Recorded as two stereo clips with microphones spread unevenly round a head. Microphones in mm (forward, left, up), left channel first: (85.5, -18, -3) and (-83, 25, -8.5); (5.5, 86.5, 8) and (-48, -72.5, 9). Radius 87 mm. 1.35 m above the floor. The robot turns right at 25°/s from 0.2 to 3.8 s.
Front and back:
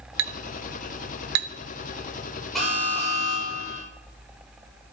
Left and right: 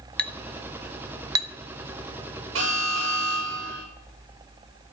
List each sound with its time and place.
0.2 s a clink: 155° left, 1.1 m; by 1.5 s 170° right, 1.1 m
2.5 s an alarm: 105° right, 7.5 m; by 3.8 s 75° right, 7.5 m